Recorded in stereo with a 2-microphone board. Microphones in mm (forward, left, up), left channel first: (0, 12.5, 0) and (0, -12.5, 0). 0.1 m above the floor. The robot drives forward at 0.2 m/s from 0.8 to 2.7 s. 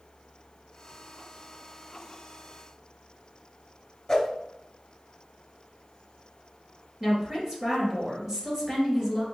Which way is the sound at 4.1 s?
25° left (ahead or behind).